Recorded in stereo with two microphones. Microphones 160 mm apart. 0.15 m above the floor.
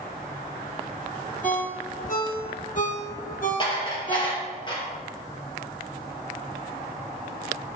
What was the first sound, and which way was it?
A ringtone, 60° left (ahead or behind).